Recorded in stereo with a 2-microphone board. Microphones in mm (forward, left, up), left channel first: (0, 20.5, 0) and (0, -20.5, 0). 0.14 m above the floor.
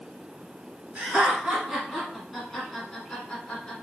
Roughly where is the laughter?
Right.